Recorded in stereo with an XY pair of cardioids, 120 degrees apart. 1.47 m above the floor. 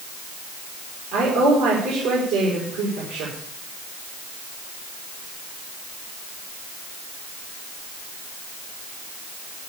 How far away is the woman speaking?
About 5.5 m.